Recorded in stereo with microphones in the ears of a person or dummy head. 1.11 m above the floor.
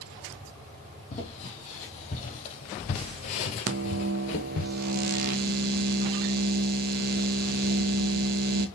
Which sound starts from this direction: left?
Footsteps, at 1.1 s.